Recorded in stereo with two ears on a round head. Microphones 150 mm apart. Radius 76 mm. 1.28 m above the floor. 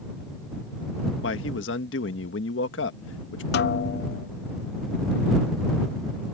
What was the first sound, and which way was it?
A man speaking, 85° left.